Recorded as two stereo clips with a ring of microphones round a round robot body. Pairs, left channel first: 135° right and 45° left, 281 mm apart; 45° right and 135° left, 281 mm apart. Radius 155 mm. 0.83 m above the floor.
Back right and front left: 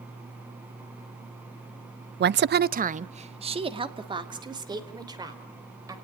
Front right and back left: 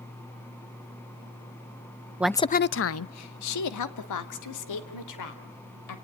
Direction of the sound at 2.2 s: 60° left.